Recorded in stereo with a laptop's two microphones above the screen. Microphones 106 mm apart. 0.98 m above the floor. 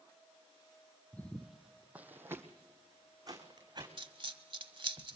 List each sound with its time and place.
1.1 s footsteps: 15° left (ahead or behind), 1.4 m; by 3.9 s 40° right (ahead or behind), 3.5 m
4.0 s a dropped coin: 55° right (ahead or behind), 1.2 m